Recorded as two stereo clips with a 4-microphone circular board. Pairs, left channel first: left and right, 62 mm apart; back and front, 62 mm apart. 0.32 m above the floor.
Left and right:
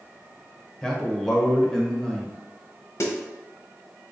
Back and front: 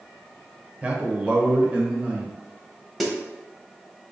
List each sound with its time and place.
0.8 s a man speaking: 25° left, 0.9 m
3.0 s a snare drum: 90° left, 1.0 m